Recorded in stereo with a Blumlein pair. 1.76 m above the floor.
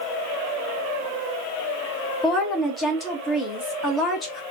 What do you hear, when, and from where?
2.2 s a woman speaking: 15° left, 1.4 m